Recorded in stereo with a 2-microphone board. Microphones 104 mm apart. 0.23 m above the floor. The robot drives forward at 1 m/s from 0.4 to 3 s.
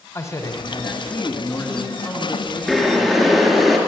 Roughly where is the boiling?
Centre.